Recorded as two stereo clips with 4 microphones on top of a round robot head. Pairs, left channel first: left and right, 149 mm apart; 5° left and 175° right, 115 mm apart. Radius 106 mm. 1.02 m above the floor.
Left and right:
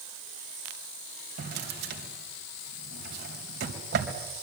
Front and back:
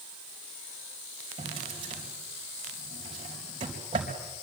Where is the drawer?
115° right, 3.5 m.